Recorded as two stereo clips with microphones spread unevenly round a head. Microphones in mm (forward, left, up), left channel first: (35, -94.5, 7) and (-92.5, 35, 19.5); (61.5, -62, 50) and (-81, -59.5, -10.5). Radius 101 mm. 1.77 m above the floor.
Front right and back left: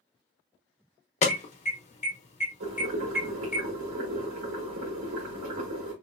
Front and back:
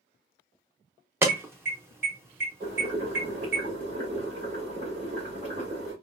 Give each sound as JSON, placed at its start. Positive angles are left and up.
{"t": 1.2, "sound": "an alarm", "azimuth_deg": -95, "distance_m": 1.1}
{"t": 2.6, "sound": "boiling", "azimuth_deg": 110, "distance_m": 2.0}